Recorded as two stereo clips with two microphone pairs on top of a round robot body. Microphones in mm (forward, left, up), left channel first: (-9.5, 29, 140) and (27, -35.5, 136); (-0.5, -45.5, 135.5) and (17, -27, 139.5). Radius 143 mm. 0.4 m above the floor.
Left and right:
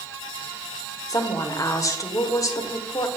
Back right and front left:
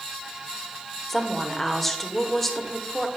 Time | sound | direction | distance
1.1 | a woman speaking | 155° left | 1.2 m